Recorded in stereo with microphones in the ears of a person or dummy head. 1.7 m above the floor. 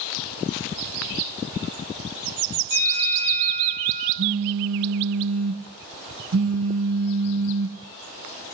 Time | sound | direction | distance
2.7 | a bell | 75° left (ahead or behind) | 4.5 m
4.2 | a phone buzzing | 60° right (ahead or behind) | 1.4 m